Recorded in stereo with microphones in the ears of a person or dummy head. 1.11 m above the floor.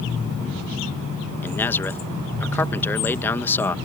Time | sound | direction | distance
1.4 | a man speaking | 15° left (ahead or behind) | ?